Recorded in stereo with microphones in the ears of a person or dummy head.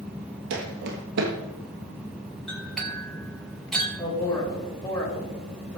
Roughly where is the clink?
Centre.